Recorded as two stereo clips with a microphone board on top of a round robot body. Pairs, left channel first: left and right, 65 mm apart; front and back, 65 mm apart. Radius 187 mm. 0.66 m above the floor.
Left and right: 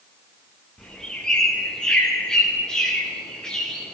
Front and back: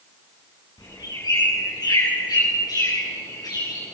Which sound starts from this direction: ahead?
A bird, at 0.8 s.